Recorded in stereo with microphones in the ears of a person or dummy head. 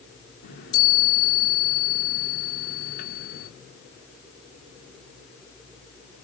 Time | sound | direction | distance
0.4 | a chime | 55° left (ahead or behind) | 2 m